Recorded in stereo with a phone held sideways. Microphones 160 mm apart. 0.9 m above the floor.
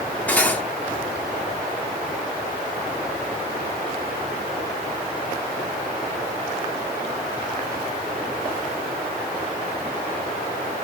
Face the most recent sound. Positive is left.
turn(degrees=10)  # may be behind; listen again after turning